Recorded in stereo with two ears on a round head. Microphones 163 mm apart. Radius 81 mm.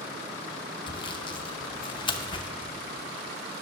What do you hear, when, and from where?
0.9 s sawing: 25° left (ahead or behind), 0.6 m